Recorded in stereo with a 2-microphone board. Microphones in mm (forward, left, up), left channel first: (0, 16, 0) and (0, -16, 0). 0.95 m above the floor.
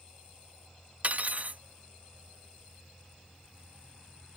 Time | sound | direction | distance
1.0 | cutlery clinking | 45° right (ahead or behind) | ?